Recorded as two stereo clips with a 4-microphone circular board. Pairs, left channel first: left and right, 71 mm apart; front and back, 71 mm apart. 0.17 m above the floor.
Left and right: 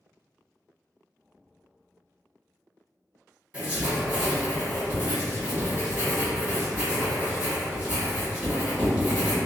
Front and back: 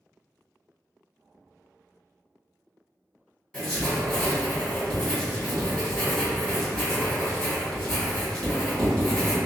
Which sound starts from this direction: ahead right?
Writing, at 3.5 s.